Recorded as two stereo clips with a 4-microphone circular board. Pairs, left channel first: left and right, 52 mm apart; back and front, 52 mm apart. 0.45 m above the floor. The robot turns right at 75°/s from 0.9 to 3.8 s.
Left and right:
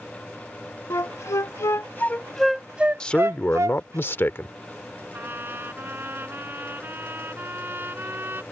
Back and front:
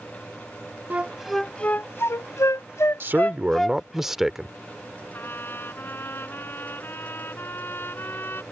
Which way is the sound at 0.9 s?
60° left.